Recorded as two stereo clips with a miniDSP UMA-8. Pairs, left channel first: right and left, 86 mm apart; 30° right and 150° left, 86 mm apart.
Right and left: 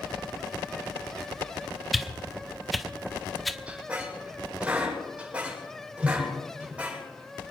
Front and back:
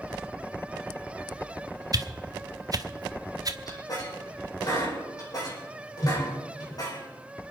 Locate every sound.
1.9 s a whoosh: straight behind, 1.0 m
3.7 s a squeak: 15° left, 7.5 m